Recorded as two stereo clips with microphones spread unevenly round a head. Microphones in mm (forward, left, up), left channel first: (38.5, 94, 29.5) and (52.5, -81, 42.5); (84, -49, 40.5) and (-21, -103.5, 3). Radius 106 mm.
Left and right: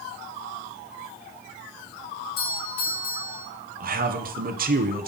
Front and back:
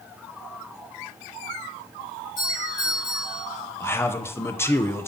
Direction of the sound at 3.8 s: 45° right.